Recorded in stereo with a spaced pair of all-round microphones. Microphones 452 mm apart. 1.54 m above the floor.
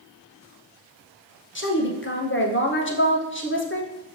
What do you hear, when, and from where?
1.6 s a woman speaking: 25° left (ahead or behind), 0.7 m